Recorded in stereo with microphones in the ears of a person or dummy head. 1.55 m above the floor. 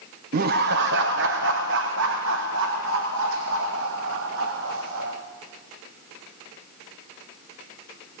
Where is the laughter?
50° right (ahead or behind), 0.7 m; by 5.1 s 75° right (ahead or behind), 3 m.